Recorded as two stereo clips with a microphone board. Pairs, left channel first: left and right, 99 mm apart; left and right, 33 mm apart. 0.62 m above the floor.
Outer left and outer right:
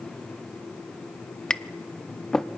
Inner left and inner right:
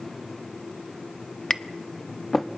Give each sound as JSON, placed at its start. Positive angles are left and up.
{"t": 1.5, "sound": "tapping", "side_deg": 5, "distance_m": 0.6}